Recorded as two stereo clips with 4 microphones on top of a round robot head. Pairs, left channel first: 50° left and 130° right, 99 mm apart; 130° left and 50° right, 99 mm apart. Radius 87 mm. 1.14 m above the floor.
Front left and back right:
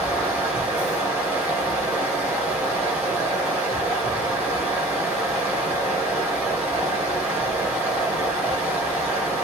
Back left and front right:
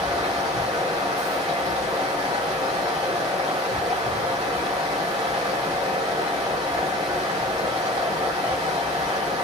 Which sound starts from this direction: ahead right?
Running water, at 0.0 s.